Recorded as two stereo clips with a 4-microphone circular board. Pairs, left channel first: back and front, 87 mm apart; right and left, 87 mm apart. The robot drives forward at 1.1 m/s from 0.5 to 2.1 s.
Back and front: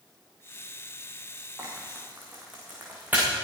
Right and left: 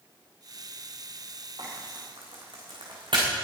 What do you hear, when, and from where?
1.6 s frying: 65° left, 5.5 m; by 3.3 s 70° left, 5.5 m